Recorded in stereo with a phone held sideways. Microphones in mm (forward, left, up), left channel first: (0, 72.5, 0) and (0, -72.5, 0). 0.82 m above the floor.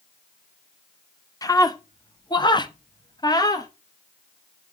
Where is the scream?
25° left (ahead or behind), 1.1 m.